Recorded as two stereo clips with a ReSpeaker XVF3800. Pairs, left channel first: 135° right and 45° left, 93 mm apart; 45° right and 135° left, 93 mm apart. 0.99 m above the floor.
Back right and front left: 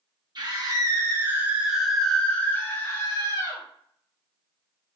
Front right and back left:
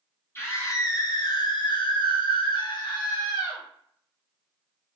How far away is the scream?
About 1.2 m.